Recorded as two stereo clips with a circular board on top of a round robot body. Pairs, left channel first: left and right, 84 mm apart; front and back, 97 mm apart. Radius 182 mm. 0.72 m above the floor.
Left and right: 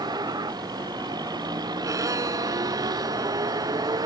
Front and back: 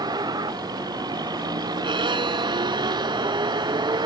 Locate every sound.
0.0 s a vehicle: 135° right
1.8 s a violin: 140° right